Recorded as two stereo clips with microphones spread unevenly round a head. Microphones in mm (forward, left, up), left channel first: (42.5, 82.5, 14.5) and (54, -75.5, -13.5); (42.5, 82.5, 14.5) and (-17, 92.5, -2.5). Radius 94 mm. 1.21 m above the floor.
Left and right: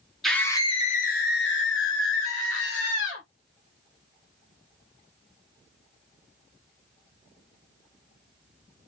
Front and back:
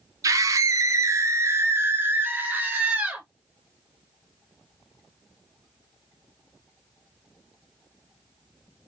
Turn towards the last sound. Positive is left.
turn(degrees=110)